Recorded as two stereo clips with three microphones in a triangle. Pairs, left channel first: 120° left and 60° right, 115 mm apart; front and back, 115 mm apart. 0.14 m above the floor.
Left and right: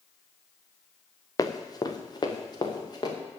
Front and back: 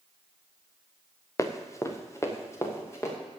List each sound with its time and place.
1.4 s running footsteps: 65° left, 1.5 m